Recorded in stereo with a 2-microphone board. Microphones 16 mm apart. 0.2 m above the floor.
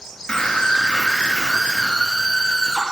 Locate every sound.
0.3 s a scream: 65° left (ahead or behind), 3.5 m; by 2.8 s 70° left (ahead or behind), 5 m